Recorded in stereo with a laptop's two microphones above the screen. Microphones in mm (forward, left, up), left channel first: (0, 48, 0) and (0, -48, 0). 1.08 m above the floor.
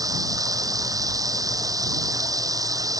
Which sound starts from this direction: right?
Running water, at 0.0 s.